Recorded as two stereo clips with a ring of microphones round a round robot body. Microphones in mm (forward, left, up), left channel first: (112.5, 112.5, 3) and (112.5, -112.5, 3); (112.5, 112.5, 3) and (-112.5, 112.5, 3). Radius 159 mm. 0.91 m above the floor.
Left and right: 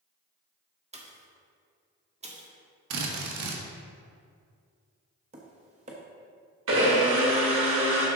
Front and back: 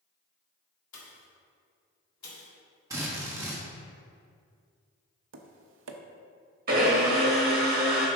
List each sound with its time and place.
0.9 s a pop: 30° right, 1.6 m
2.9 s a drill: 100° right, 1.2 m
5.3 s tapping: 155° right, 0.6 m
6.7 s a blender: 125° right, 1.5 m